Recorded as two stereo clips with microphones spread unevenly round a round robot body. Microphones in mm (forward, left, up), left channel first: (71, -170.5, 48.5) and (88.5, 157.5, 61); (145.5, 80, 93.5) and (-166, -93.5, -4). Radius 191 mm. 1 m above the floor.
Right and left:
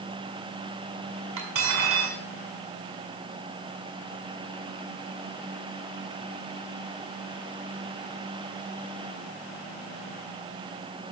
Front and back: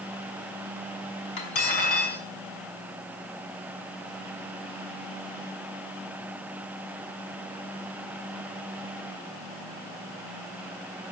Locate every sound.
1.4 s cutlery clinking: 45° left, 5.5 m